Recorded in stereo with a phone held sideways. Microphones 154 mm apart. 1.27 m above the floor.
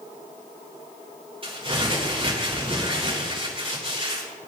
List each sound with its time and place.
1.4 s crumpling: 35° right (ahead or behind), 4 m